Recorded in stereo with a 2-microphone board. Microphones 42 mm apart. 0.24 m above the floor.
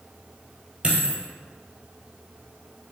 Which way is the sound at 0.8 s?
25° right (ahead or behind).